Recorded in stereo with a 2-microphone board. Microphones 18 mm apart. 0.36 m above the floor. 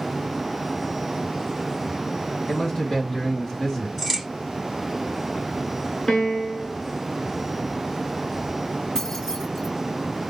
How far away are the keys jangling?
About 2.5 m.